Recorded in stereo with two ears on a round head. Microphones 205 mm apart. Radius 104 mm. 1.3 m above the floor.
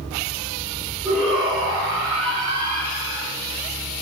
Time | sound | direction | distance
1.1 | a shout | 5° right (ahead or behind) | 4 m